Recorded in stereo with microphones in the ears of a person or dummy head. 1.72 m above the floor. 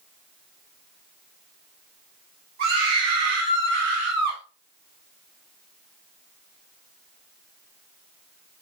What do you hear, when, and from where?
2.6 s a scream: 65° right (ahead or behind), 6.5 m; by 4.4 s 50° right (ahead or behind), 5.5 m